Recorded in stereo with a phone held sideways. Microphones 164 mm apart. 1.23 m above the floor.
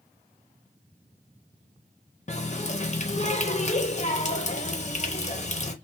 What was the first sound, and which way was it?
A running tap, 45° left (ahead or behind).